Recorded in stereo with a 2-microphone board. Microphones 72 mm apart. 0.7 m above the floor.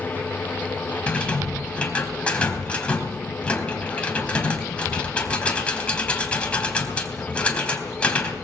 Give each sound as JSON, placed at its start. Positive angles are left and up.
{"t": 1.1, "sound": "a rattle", "side_deg": 15, "distance_m": 3.5}